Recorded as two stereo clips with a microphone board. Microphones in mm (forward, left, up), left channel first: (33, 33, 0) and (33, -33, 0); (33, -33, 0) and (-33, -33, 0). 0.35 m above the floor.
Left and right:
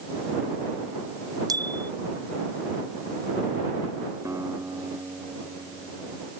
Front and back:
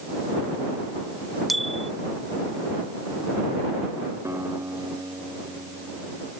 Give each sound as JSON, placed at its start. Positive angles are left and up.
{"t": 1.5, "sound": "a bicycle bell", "azimuth_deg": -90}
{"t": 4.2, "sound": "a guitar", "azimuth_deg": -130}